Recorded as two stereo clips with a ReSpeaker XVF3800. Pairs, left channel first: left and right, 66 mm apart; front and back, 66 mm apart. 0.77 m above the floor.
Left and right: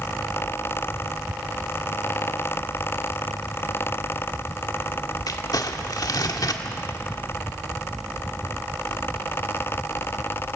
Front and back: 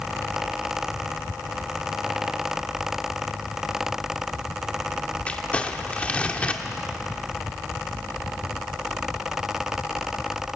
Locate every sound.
5.3 s crumpling: 70° left, 1.4 m